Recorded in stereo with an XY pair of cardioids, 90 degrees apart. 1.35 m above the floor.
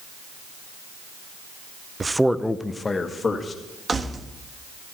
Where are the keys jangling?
35° right, 1.3 m.